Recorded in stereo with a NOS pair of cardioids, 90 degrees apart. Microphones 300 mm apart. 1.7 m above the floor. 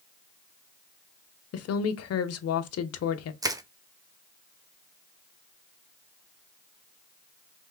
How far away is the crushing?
About 0.6 m.